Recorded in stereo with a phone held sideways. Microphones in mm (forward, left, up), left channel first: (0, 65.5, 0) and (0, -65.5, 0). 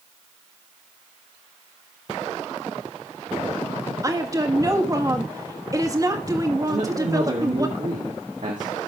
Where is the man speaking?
75° right (ahead or behind), 2 m.